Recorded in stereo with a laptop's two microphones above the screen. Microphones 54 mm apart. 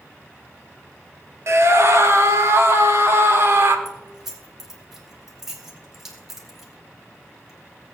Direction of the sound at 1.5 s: 60° right (ahead or behind).